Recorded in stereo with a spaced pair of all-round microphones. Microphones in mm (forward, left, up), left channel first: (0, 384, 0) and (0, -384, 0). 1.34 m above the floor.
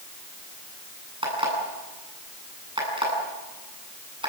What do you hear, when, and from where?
1.2 s an alarm clock: 5° right (ahead or behind), 9.5 m